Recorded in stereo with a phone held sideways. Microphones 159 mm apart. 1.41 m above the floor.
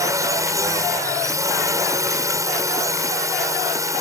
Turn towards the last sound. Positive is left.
turn(degrees=-20)  # may be behind; listen again after turning